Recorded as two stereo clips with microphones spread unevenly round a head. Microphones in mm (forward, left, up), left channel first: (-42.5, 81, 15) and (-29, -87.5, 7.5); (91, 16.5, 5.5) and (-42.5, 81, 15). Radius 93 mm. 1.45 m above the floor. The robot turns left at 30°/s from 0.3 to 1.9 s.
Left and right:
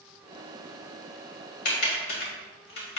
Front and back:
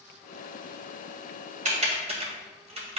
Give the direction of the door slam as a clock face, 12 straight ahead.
I don't hear a door slam.